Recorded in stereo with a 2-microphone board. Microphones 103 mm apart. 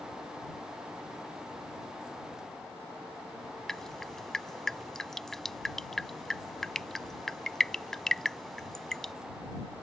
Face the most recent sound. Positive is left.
turn(degrees=5)  # may be behind; listen again after turning